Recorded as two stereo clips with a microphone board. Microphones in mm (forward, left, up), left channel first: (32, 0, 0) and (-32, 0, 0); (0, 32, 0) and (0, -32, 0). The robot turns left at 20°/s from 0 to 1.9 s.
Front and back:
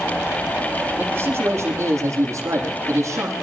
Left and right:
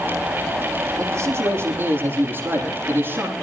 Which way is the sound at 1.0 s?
115° right.